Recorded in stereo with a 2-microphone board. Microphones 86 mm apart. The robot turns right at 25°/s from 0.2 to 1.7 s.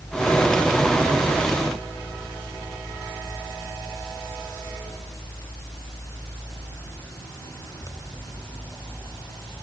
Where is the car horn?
I don't hear a car horn.